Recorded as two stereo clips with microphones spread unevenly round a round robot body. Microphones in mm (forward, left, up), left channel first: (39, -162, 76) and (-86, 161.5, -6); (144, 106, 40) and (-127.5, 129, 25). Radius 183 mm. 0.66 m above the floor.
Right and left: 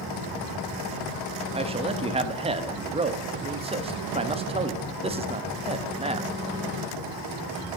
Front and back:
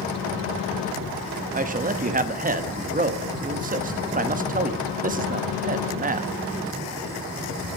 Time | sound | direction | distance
1.5 | a man speaking | 150° left | 0.8 m